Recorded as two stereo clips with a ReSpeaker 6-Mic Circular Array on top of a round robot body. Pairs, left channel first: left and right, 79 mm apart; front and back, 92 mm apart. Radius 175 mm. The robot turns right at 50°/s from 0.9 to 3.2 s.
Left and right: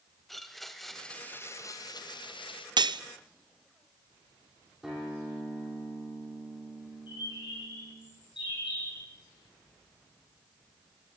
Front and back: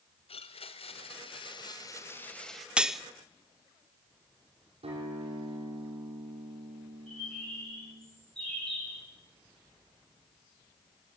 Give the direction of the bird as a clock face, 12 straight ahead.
9 o'clock.